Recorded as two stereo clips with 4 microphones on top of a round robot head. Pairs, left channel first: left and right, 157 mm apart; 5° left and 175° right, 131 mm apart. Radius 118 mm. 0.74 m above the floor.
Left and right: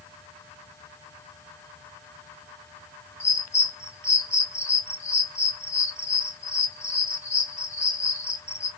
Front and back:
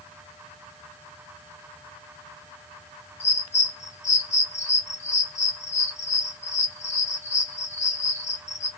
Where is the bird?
20° left, 1.8 m.